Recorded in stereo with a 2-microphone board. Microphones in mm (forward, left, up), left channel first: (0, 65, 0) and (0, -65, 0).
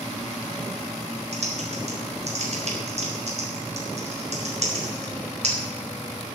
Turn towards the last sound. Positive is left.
turn(degrees=-55)  # may be behind; listen again after turning